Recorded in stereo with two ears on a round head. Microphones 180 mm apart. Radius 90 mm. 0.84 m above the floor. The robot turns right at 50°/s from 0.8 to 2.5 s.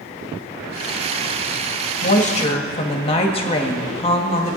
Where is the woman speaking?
45° left (ahead or behind), 1.5 m; by 4.6 s 30° left (ahead or behind), 1.5 m.